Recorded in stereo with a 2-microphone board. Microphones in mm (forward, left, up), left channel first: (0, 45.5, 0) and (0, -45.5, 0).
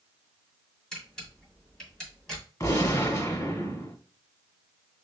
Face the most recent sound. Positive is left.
turn(degrees=35)  # may be behind; listen again after turning